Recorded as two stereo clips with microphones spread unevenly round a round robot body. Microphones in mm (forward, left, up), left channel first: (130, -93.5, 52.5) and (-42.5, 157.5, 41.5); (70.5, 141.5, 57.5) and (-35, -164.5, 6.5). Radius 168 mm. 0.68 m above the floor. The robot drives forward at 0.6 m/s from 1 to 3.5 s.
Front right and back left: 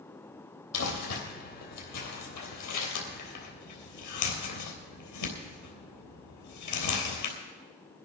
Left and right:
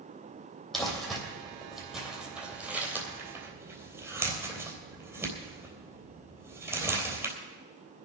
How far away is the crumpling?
About 4.5 m.